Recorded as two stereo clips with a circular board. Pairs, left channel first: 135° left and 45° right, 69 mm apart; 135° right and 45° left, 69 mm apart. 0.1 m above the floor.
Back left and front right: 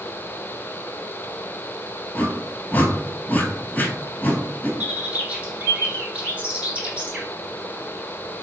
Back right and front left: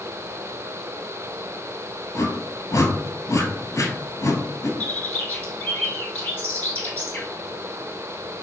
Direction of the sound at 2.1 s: 165° right.